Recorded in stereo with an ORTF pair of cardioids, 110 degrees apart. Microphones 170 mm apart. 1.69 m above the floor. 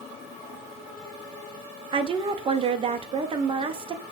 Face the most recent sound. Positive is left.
turn(degrees=-30)